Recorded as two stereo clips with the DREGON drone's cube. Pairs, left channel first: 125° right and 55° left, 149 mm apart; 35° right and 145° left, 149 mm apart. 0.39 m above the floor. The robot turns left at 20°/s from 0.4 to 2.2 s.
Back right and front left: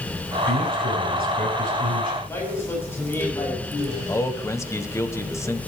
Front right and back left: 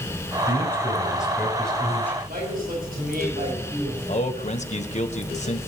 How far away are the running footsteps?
I don't hear running footsteps.